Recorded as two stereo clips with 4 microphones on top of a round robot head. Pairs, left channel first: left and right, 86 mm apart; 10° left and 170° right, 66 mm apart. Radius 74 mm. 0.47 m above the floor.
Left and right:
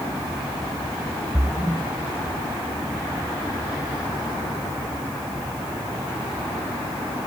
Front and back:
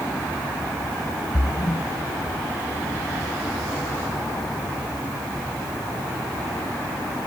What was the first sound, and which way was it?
A splash, 10° right.